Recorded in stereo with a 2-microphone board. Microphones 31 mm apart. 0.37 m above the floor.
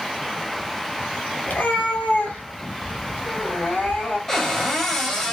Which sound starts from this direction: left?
A cat meowing, at 1.5 s.